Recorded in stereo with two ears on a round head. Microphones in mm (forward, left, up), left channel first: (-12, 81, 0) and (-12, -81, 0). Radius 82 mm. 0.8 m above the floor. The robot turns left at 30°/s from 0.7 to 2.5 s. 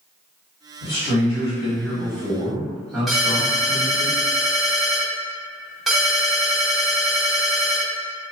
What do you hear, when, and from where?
0.8 s a man speaking: 50° left, 1.6 m; by 4.1 s straight ahead, 1.6 m
3.1 s a ringtone: centre (ahead or behind), 1.0 m